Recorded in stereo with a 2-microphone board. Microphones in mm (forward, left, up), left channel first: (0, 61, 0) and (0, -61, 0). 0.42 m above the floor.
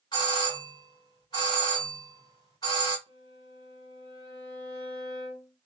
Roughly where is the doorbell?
Left.